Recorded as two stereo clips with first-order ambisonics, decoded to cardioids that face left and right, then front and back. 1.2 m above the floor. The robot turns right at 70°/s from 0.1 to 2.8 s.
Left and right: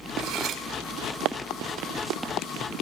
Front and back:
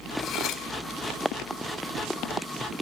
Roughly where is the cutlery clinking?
Ahead right.